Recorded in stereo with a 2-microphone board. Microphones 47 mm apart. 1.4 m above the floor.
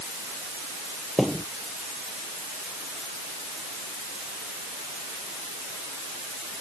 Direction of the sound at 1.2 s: 5° left (ahead or behind).